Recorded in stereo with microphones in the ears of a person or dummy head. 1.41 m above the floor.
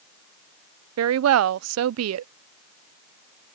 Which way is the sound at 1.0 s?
80° right.